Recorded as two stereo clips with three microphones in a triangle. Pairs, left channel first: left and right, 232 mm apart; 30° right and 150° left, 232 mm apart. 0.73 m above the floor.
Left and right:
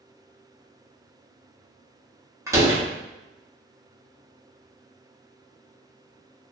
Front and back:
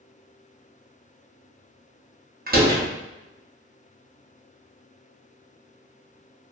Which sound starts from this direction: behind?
A door slam, at 2.5 s.